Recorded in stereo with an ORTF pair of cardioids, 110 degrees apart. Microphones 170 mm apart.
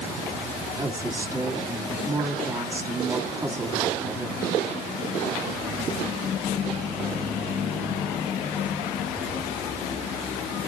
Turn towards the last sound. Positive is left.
turn(degrees=-15)